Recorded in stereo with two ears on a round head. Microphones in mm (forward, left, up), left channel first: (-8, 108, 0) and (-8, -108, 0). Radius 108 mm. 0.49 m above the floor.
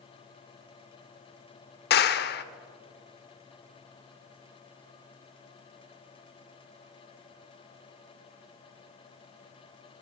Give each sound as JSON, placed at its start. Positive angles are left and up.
{"t": 1.9, "sound": "a clap", "side_deg": 45, "distance_m": 0.8}